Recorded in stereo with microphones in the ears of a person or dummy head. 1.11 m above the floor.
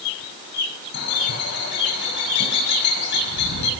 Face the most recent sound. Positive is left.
turn(degrees=55)  # may be behind; listen again after turning